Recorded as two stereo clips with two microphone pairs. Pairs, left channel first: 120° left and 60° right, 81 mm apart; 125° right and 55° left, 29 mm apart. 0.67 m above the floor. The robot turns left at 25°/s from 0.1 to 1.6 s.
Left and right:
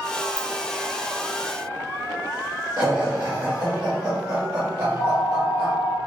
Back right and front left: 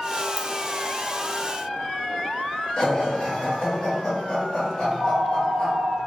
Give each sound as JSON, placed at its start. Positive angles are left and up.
{"t": 0.4, "sound": "a ringtone", "azimuth_deg": 10, "distance_m": 0.6}
{"t": 2.8, "sound": "laughter", "azimuth_deg": -85, "distance_m": 1.1}
{"t": 4.8, "sound": "a phone ringing", "azimuth_deg": -145, "distance_m": 0.9}